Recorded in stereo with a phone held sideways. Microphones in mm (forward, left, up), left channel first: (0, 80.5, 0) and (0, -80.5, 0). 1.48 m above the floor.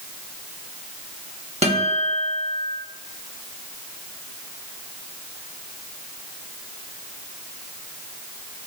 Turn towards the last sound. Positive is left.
turn(degrees=-40)  # may be behind; listen again after turning